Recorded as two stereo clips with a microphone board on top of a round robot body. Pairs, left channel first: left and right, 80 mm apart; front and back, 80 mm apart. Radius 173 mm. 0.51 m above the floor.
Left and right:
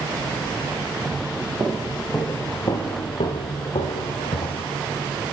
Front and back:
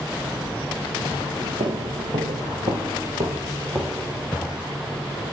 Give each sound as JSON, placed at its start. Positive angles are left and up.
{"t": 1.6, "sound": "footsteps", "azimuth_deg": -160, "distance_m": 0.8}